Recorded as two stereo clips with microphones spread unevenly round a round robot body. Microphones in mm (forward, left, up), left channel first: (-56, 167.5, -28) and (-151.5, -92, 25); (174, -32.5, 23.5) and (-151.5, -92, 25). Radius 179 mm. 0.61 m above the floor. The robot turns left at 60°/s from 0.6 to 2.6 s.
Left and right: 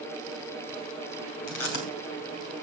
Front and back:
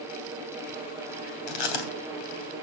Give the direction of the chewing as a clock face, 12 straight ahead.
11 o'clock.